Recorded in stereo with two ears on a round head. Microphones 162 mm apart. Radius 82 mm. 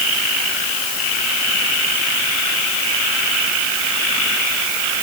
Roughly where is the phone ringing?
No phone ringing in this recording.